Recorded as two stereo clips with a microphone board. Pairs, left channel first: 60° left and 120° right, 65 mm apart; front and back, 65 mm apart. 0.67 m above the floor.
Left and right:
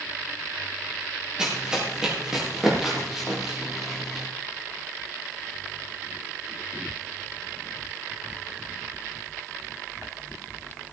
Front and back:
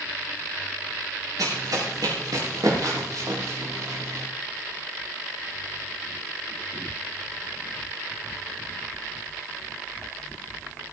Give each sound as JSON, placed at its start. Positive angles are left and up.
{"t": 1.4, "sound": "running footsteps", "azimuth_deg": 165, "distance_m": 7.0}